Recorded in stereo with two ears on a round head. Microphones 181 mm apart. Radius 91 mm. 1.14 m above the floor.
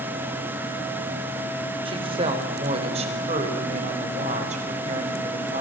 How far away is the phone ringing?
No phone ringing in this recording.